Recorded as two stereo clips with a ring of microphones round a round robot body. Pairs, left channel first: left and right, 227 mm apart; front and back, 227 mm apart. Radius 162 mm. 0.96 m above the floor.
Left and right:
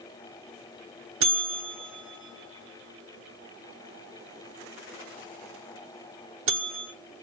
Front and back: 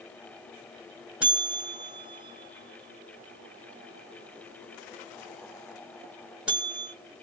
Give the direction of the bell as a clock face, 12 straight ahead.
3 o'clock.